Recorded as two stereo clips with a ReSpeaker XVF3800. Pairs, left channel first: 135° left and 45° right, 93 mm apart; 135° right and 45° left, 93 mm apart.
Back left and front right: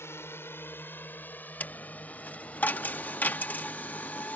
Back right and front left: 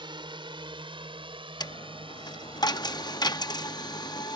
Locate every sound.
0.0 s a drone: 75° left; by 4.4 s 55° left
1.6 s a dropped coin: 160° right